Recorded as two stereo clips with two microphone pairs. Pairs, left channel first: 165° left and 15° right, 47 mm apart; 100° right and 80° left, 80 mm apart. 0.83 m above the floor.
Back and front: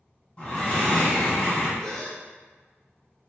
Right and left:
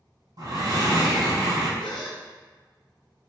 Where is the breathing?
105° left, 1.3 m.